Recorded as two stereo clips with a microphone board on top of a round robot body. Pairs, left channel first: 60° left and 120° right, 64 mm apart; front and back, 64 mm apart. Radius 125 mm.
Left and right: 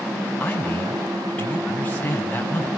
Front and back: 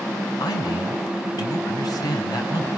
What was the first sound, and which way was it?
A man speaking, 10° right.